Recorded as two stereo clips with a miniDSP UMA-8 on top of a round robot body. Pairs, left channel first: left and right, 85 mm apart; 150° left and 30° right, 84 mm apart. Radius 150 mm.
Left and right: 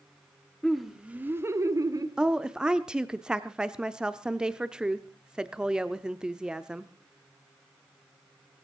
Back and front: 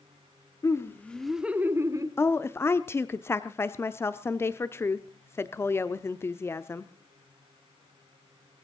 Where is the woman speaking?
165° right, 1.0 m.